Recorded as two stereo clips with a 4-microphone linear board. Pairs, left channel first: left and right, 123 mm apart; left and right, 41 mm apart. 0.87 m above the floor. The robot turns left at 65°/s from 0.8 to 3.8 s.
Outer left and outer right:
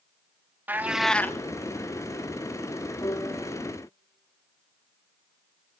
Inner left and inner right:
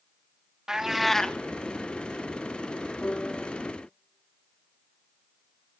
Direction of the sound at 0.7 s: 165° right.